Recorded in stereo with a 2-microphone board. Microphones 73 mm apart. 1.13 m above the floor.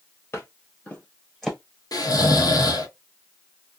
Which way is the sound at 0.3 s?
35° left (ahead or behind).